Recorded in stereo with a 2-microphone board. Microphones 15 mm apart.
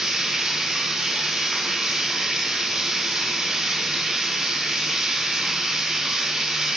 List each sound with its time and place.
0.0 s running water: 70° right (ahead or behind), 1.7 m